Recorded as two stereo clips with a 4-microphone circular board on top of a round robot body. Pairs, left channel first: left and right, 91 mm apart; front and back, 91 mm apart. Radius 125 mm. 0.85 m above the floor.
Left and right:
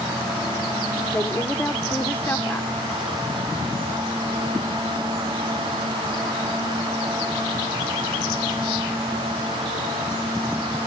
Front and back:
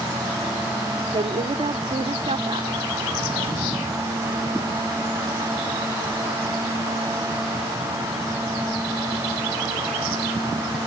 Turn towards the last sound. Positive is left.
turn(degrees=160)